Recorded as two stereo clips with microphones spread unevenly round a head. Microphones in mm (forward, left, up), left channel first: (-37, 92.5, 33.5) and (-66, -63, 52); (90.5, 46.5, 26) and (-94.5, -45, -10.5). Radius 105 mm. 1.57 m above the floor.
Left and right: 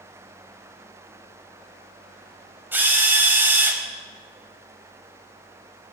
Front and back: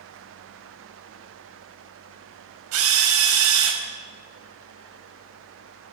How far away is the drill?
About 5 m.